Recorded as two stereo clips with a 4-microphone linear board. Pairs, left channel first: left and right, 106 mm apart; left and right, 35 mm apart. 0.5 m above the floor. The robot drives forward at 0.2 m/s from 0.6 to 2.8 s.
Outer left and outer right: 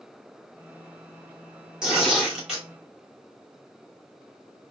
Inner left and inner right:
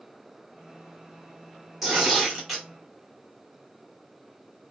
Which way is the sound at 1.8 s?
5° right (ahead or behind).